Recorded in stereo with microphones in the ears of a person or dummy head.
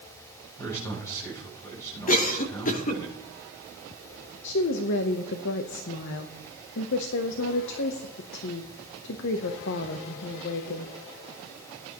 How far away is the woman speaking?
About 0.8 m.